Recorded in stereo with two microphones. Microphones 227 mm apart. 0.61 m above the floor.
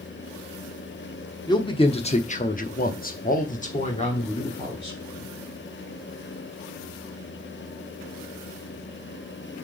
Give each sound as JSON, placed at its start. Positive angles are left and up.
{"t": 1.5, "sound": "a man speaking", "side_deg": 20, "distance_m": 1.2}